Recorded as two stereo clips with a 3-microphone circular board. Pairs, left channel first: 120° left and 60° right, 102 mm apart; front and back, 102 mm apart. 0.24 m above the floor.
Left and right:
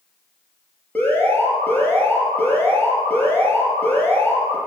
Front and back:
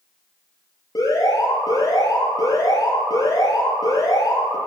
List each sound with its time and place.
0.9 s an alarm: 45° left, 5.5 m